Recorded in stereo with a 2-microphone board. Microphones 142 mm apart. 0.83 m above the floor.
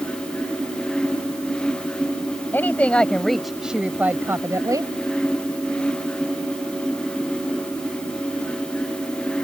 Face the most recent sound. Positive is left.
turn(degrees=-25)  # may be behind; listen again after turning